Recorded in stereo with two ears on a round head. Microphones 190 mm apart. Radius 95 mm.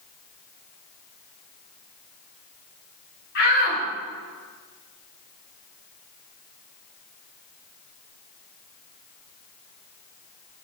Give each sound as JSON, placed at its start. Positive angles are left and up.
{"t": 3.4, "sound": "a shout", "side_deg": 50, "distance_m": 5.0}